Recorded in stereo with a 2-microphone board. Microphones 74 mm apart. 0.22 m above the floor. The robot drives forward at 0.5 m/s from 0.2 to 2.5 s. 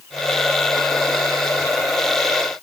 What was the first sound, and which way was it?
Only background noise.